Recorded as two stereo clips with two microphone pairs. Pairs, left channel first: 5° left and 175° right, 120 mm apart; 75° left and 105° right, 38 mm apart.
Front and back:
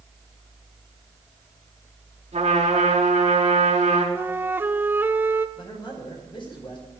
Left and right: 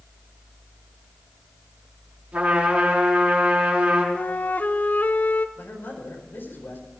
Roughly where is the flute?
Behind left.